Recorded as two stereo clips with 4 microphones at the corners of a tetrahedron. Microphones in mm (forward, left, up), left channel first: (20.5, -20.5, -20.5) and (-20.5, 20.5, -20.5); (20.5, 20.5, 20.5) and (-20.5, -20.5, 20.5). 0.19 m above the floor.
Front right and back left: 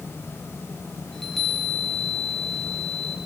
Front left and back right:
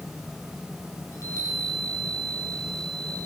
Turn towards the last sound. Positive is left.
turn(degrees=35)